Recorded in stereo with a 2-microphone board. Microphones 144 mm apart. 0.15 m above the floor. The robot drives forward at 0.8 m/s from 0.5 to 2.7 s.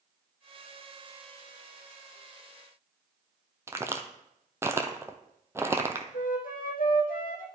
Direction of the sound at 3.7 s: 20° right (ahead or behind).